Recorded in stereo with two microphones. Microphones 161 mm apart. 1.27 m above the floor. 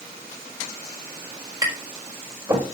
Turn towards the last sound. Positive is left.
turn(degrees=-20)  # may be behind; listen again after turning